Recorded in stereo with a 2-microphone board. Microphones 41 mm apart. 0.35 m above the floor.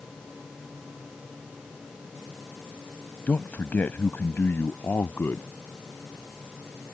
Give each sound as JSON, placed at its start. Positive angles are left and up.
{"t": 3.3, "sound": "a man speaking", "side_deg": 45}